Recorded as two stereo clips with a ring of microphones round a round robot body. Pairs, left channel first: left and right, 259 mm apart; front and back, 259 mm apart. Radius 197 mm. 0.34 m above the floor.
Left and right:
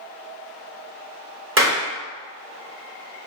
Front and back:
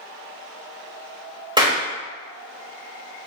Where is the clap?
110° right, 1.1 m.